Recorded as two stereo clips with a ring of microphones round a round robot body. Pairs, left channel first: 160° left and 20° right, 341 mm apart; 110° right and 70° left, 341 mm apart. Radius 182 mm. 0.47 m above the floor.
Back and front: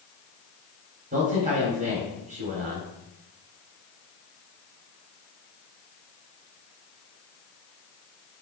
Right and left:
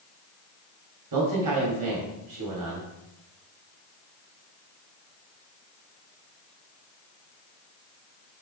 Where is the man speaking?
45° left, 2.5 m.